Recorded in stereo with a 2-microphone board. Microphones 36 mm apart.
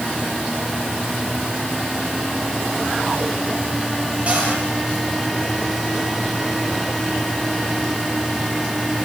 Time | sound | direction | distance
4.3 | a cupboard door | 35° right (ahead or behind) | 10 m